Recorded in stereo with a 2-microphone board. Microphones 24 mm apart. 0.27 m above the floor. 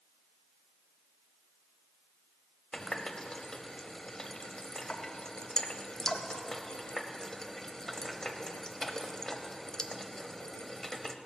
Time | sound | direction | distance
2.7 | a running tap | 25° left (ahead or behind) | 0.8 m